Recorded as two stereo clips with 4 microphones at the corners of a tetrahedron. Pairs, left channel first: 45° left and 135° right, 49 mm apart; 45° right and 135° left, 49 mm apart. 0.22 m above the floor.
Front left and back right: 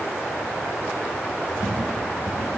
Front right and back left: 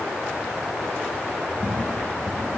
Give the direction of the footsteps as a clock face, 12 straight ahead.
11 o'clock.